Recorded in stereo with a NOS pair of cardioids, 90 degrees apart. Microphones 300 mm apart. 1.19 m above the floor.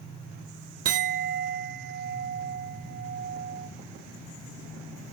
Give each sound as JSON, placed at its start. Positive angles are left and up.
{"t": 0.8, "sound": "a clink", "azimuth_deg": -50, "distance_m": 0.7}